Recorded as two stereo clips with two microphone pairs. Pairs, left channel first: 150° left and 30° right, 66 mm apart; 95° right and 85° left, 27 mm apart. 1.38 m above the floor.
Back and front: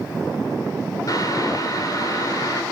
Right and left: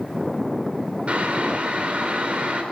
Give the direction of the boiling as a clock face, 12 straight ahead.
8 o'clock.